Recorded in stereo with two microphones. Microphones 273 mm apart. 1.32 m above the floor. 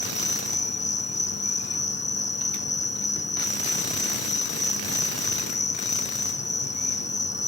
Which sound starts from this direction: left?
An insect, at 0.0 s.